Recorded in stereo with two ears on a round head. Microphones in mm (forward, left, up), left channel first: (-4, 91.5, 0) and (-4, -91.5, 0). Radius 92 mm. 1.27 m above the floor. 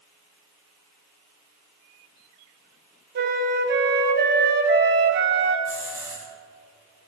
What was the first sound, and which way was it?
A flute, 55° right (ahead or behind).